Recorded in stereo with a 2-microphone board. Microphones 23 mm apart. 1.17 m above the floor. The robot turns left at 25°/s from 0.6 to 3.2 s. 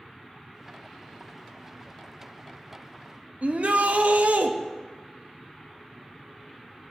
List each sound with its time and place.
3.4 s a shout: 70° right (ahead or behind), 1.6 m